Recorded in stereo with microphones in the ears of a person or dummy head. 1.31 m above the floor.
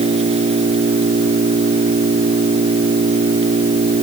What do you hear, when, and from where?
0.0 s an engine running: 35° right (ahead or behind)